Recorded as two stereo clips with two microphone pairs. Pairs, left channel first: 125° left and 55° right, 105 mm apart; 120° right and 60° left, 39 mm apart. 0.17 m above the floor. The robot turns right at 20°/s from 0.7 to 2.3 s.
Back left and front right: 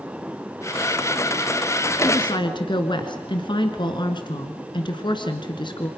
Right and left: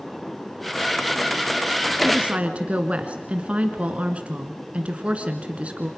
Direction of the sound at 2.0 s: 100° left.